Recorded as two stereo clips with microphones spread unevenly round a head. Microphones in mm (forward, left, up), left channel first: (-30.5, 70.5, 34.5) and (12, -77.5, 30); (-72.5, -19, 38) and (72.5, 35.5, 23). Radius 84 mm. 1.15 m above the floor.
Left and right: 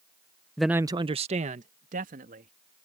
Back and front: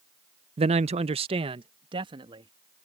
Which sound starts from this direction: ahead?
A man speaking, at 0.6 s.